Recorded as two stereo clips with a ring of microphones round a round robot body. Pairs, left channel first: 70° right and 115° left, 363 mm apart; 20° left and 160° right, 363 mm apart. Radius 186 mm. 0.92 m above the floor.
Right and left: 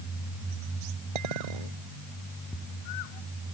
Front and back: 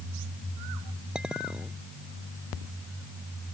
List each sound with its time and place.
1.1 s a clink: 115° left